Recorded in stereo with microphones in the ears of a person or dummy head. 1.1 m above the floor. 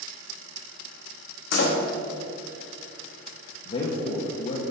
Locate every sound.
1.5 s a door slam: 65° left (ahead or behind), 1.2 m
3.6 s a man speaking: 35° left (ahead or behind), 1.0 m